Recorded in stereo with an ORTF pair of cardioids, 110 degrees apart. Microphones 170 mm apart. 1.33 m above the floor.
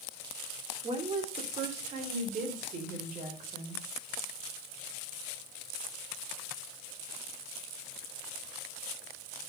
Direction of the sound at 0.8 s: 35° right.